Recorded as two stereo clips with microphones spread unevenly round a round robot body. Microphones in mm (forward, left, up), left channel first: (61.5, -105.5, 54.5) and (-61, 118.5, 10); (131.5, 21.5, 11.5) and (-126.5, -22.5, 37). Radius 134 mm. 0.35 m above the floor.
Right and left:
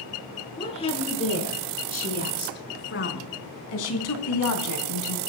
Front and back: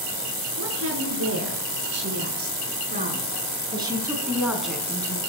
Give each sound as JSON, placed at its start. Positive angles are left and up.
{"t": 0.6, "sound": "a woman speaking", "azimuth_deg": -135, "distance_m": 7.0}